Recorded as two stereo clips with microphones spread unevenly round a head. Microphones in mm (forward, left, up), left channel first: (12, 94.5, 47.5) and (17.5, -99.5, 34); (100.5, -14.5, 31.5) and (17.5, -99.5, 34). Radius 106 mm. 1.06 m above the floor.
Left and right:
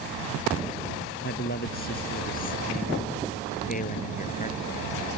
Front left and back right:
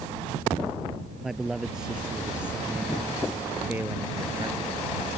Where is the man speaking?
140° left; by 5.2 s 150° left.